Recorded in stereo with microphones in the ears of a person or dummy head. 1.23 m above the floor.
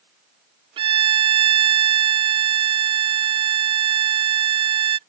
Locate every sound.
0.8 s a violin: 30° right (ahead or behind)